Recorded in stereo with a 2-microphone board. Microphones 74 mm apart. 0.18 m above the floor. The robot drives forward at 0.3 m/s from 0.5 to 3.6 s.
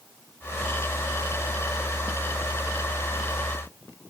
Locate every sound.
Only background noise.